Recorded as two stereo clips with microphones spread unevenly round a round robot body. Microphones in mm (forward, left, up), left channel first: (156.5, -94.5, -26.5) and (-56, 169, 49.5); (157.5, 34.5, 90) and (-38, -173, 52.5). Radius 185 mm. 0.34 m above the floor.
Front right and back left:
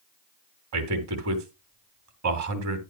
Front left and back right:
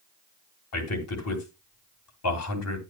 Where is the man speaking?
85° left, 3.5 m.